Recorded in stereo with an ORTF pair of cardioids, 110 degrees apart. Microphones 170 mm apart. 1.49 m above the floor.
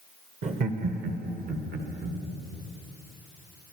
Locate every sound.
0.4 s laughter: 45° right, 1.3 m; by 2.2 s 60° right, 2.5 m